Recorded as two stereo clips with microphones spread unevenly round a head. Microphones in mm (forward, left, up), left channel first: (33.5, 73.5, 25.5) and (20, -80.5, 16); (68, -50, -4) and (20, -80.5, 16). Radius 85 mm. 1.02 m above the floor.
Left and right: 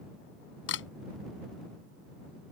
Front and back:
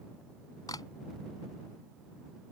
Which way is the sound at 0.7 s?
95° left.